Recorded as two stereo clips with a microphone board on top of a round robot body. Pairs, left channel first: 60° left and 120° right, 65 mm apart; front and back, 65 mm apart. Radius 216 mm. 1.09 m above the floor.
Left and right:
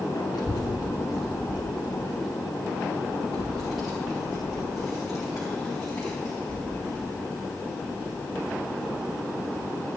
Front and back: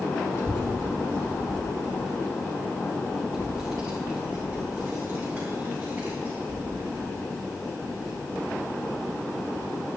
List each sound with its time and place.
0.3 s a child speaking: 40° left, 0.9 m; by 9.7 s 150° left, 8.5 m